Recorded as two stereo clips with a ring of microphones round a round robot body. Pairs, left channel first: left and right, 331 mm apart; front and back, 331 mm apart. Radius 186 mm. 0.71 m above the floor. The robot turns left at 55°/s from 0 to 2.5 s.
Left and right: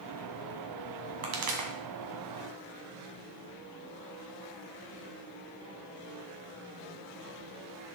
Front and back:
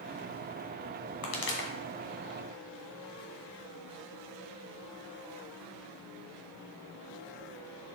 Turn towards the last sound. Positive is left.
turn(degrees=-110)